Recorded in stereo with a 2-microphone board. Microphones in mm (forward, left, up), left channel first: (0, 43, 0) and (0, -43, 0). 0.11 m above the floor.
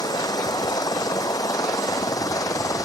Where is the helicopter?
45° left (ahead or behind); by 2.9 s 40° left (ahead or behind).